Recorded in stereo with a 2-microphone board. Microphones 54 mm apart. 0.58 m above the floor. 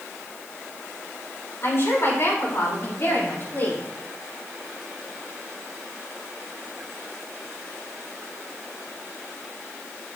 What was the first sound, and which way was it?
A woman speaking, 55° left (ahead or behind).